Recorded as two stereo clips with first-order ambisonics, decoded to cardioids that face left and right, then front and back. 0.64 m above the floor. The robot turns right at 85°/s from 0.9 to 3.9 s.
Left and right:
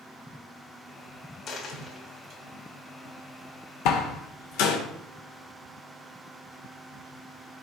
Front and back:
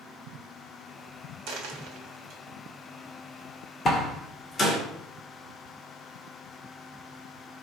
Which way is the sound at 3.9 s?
65° left.